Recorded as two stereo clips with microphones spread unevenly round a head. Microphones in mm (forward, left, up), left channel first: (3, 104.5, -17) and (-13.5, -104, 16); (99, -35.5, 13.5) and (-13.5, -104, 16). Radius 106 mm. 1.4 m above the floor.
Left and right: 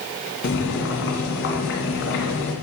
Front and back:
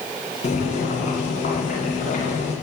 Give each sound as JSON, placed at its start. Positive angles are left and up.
{"t": 0.4, "sound": "boiling", "azimuth_deg": 60, "distance_m": 2.5}